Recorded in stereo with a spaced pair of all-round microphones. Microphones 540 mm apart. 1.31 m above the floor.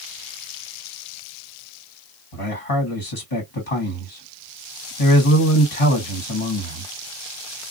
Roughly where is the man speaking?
Left.